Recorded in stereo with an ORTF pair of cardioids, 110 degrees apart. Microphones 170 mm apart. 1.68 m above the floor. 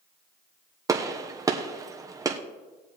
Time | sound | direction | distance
0.9 | a gunshot | 20° right | 1.2 m